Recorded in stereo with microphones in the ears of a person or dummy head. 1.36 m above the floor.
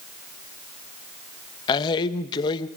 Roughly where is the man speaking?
Left.